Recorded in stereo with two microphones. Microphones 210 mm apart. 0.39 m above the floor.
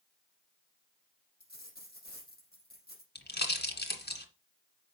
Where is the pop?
50° left (ahead or behind), 1.9 m.